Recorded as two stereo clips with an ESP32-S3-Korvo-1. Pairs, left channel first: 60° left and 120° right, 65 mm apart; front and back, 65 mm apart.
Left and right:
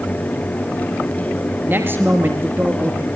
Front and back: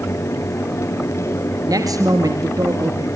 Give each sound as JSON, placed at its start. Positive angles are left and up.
{"t": 1.6, "sound": "a man speaking", "azimuth_deg": -175, "distance_m": 3.0}